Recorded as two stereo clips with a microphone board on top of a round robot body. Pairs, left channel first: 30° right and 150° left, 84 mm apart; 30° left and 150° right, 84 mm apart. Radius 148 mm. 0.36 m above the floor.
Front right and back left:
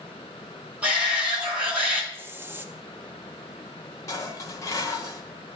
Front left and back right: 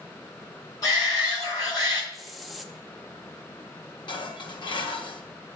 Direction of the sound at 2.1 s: 120° left.